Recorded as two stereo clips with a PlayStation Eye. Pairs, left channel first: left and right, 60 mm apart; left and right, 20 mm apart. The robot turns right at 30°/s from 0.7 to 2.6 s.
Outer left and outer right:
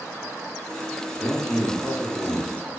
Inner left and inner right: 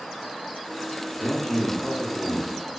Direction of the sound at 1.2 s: 20° left (ahead or behind).